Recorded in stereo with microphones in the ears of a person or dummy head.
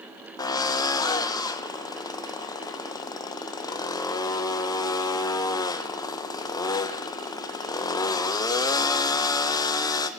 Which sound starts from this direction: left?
A drill, at 0.4 s.